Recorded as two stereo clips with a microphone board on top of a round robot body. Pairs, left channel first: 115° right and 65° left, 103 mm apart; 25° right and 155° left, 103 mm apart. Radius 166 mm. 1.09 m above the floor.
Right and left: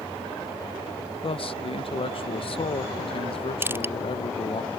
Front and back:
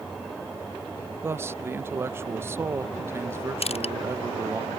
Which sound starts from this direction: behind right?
A man speaking, at 1.2 s.